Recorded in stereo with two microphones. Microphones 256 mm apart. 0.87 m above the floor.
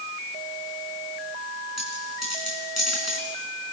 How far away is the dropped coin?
About 5 m.